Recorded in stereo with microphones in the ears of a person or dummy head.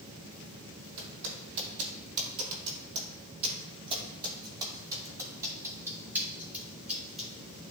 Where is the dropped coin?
I don't hear a dropped coin.